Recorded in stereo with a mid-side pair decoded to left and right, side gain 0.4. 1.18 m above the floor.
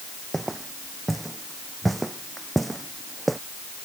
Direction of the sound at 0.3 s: 15° right.